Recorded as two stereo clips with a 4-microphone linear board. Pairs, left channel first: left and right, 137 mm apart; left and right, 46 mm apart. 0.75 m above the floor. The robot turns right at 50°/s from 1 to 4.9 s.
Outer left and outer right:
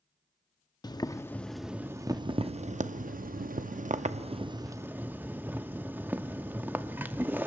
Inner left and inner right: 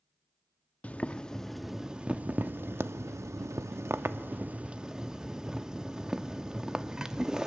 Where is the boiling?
150° left, 0.6 m; by 7.5 s 15° right, 0.6 m.